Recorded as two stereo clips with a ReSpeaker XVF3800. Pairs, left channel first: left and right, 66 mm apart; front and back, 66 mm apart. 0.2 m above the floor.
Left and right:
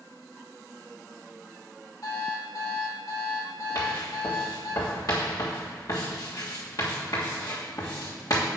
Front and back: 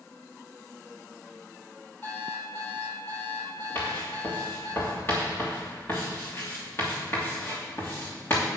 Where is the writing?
55° left, 3 m.